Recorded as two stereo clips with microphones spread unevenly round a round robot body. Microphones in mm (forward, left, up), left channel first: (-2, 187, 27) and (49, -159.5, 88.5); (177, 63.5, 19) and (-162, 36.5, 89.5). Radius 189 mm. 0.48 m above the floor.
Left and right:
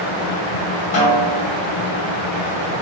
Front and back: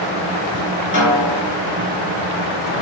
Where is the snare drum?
60° left, 1.9 m.